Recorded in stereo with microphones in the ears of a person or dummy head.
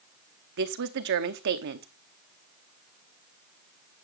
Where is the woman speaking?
55° right (ahead or behind), 0.9 m.